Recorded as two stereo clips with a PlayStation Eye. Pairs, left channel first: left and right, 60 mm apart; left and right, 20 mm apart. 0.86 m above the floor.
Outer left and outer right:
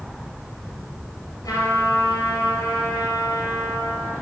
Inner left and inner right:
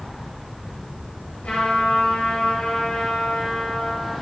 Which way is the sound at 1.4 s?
80° left.